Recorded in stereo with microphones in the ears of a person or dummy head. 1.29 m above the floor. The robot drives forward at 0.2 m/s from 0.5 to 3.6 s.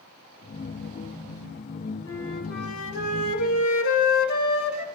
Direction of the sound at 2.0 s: 75° left (ahead or behind).